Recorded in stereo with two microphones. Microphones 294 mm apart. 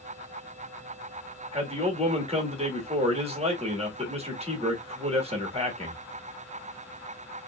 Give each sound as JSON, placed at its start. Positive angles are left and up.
{"t": 1.5, "sound": "a man speaking", "side_deg": -20, "distance_m": 1.1}